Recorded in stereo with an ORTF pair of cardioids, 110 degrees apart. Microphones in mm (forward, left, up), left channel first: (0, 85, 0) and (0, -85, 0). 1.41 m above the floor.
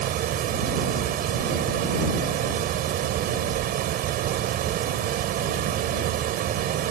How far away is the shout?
I don't hear a shout.